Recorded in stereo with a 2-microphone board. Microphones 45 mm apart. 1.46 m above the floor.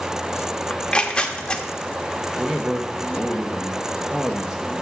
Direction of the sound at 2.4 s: 15° right (ahead or behind).